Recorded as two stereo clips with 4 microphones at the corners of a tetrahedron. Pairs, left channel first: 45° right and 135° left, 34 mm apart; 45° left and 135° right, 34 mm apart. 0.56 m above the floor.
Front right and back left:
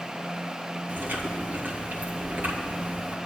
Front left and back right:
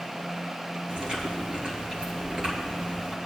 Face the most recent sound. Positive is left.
turn(degrees=165)